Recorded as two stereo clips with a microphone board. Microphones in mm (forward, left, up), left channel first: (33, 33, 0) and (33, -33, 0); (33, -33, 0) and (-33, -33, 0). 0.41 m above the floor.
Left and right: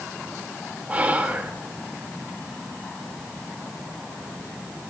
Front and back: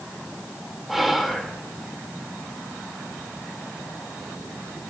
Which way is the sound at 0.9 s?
95° right.